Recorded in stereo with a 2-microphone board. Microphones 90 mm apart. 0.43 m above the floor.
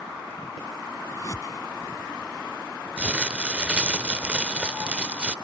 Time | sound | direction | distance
1.1 | a whoosh | 40° left (ahead or behind) | ?
3.0 | crumpling | 15° right (ahead or behind) | ?